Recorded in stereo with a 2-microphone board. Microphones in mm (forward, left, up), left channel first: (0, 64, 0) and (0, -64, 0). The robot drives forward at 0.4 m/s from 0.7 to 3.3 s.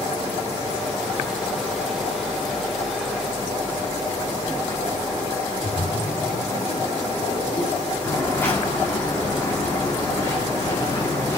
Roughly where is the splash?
Left.